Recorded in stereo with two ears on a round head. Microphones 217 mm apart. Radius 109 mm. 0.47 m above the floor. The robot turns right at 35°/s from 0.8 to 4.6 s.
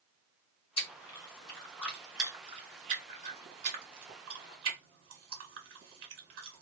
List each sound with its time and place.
0.8 s chewing: 30° left (ahead or behind), 1.9 m; by 6.6 s 60° right (ahead or behind), 1.9 m